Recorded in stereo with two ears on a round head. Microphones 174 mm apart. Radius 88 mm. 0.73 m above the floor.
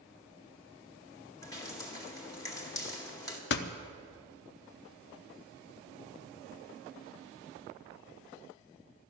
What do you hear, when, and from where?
1.4 s dripping: 20° left (ahead or behind), 1.9 m
3.5 s a door slam: 55° left (ahead or behind), 0.7 m